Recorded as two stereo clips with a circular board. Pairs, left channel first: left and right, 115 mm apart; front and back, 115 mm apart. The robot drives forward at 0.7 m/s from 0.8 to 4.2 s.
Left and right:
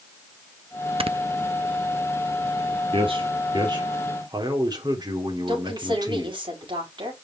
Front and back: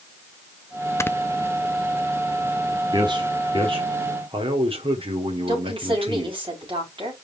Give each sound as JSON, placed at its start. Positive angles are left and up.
{"t": 1.0, "sound": "snoring", "azimuth_deg": -65, "distance_m": 0.5}
{"t": 2.9, "sound": "a man speaking", "azimuth_deg": -130, "distance_m": 2.0}
{"t": 5.5, "sound": "a woman speaking", "azimuth_deg": -135, "distance_m": 5.5}